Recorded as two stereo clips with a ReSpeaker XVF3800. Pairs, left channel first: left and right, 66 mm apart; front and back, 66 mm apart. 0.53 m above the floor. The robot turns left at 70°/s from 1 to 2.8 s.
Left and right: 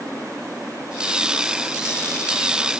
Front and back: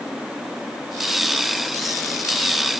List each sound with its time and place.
Only background noise.